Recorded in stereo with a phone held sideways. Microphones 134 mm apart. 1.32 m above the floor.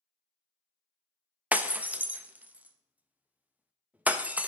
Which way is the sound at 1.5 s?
10° right (ahead or behind).